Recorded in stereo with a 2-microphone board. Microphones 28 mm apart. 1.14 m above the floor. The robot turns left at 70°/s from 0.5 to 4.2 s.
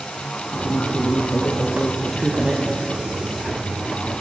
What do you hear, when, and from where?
0.5 s a woman speaking: 115° left, 1.3 m; by 2.6 s 30° right, 1.3 m